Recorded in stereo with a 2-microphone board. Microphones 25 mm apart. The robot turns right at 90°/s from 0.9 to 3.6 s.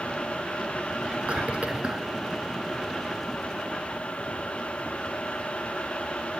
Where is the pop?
No pop in this recording.